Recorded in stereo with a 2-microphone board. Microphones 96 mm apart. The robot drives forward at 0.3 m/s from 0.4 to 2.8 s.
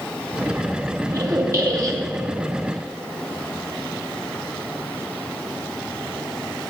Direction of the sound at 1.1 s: 35° right (ahead or behind).